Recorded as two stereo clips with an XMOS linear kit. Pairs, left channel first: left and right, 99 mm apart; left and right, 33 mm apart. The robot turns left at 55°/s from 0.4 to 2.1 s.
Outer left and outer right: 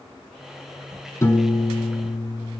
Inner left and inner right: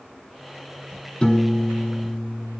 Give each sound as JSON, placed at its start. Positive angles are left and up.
{"t": 1.2, "sound": "a piano", "azimuth_deg": 140, "distance_m": 3.0}